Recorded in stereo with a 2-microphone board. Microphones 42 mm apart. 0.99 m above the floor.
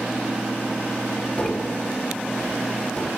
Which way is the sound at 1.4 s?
35° left (ahead or behind).